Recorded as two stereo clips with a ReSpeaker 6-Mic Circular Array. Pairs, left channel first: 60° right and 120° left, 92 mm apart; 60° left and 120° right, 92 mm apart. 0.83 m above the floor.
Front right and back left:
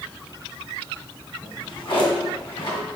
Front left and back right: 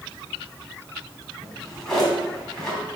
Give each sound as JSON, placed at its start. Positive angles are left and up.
{"t": 1.4, "sound": "a drawer", "azimuth_deg": -25, "distance_m": 3.5}